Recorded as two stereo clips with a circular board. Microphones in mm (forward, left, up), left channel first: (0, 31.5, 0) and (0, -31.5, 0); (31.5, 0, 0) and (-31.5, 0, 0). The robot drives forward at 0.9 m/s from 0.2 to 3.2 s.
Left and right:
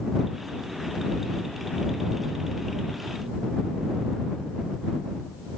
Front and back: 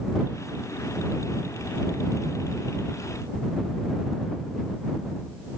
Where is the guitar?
No guitar in this recording.